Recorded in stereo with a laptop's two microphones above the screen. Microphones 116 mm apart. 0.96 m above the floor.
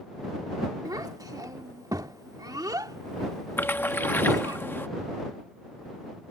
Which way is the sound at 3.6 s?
20° left (ahead or behind).